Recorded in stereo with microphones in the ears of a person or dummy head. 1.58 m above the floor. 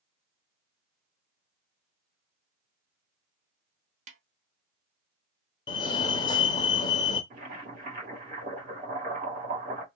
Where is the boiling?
60° right (ahead or behind), 2 m.